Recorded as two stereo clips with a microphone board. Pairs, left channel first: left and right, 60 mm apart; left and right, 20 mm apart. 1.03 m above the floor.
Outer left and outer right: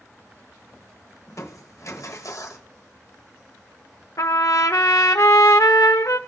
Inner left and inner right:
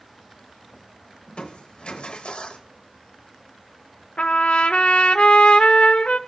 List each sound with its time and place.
1.3 s crushing: 55° left (ahead or behind), 1.1 m
4.2 s a trumpet: 65° left (ahead or behind), 0.7 m